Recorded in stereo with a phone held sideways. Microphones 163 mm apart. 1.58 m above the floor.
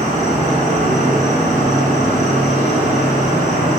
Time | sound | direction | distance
0.0 | an insect | 45° right (ahead or behind) | 1.2 m